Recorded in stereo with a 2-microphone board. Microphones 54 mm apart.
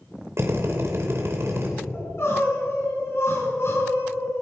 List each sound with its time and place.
0.4 s a drill: 50° right (ahead or behind), 2.5 m
1.9 s crying: 55° left (ahead or behind), 3.5 m